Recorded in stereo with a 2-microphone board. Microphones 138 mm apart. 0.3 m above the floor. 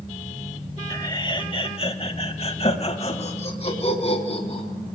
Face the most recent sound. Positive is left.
turn(degrees=45)  # may be behind; listen again after turning